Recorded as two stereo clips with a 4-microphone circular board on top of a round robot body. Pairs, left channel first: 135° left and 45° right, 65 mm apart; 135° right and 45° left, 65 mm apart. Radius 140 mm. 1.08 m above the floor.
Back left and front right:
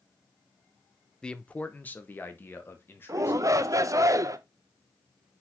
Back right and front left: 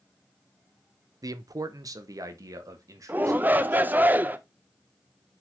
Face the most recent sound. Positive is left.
turn(degrees=-15)